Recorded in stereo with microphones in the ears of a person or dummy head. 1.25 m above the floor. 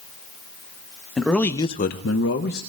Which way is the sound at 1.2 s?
5° left (ahead or behind).